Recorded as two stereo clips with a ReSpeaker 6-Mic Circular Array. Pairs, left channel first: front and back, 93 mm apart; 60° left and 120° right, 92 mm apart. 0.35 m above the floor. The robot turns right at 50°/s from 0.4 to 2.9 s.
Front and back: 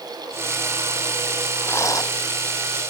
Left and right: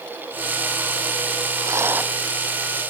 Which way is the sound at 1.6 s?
70° right.